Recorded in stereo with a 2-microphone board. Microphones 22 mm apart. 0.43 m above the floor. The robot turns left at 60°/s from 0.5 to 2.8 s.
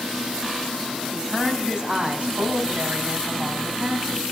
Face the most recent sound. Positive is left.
turn(degrees=-95)